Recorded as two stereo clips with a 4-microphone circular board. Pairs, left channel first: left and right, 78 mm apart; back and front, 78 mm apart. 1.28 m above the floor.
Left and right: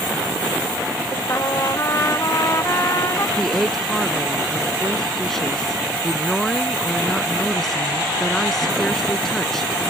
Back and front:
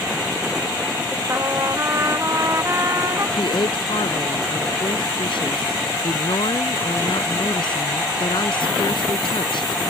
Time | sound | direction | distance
1.3 | a trumpet | 45° left | ?
3.4 | a woman speaking | 175° left | ?